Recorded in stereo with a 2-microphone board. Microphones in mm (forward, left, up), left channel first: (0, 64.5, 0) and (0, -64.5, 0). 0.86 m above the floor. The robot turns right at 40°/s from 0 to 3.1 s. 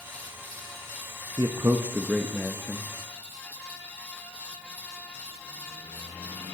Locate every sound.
1.4 s a man speaking: 40° right, 0.7 m; by 2.9 s 20° left, 0.7 m